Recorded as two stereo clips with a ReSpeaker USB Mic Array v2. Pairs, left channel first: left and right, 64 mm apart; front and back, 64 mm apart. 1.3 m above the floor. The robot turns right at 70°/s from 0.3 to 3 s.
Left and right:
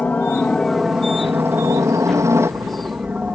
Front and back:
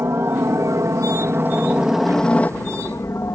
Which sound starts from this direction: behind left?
A helicopter, at 0.0 s.